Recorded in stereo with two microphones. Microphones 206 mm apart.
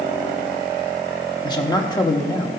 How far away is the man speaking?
About 1.0 m.